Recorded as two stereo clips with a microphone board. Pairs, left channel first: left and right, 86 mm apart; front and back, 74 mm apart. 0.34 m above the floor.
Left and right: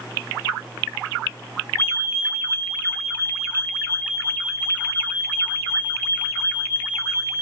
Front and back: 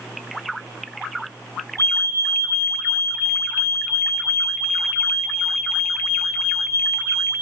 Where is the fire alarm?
150° left, 6.5 m.